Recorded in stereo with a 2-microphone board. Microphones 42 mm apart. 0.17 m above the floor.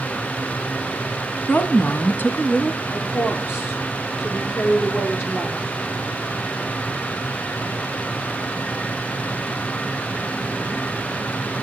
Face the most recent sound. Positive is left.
turn(degrees=65)  # may be behind; listen again after turning